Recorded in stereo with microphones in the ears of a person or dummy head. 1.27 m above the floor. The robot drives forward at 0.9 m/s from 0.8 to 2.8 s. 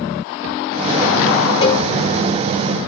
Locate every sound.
1.6 s a cowbell: 35° left (ahead or behind), 3.5 m; by 1.9 s 30° left (ahead or behind), 4 m